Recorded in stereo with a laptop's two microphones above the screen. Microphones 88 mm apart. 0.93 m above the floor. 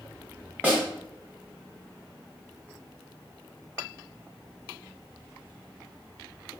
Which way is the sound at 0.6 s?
15° right (ahead or behind).